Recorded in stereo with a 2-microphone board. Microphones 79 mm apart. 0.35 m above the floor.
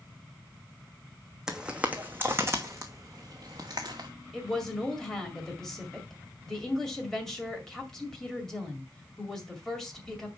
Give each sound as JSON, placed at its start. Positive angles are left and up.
{"t": 1.5, "sound": "footsteps", "side_deg": -10, "distance_m": 1.0}
{"t": 4.3, "sound": "a woman speaking", "side_deg": 5, "distance_m": 2.0}